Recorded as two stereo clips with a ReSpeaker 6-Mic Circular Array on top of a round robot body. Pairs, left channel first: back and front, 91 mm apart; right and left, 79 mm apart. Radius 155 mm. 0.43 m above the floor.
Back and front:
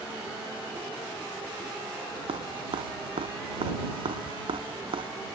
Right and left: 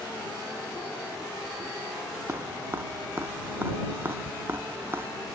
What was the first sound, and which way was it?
Dripping, 25° left.